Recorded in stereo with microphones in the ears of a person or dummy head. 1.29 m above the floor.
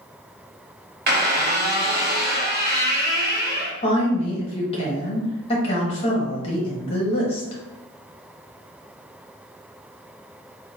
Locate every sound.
1.1 s a squeak: 45° right (ahead or behind), 0.9 m
3.8 s a woman speaking: 30° left (ahead or behind), 1.2 m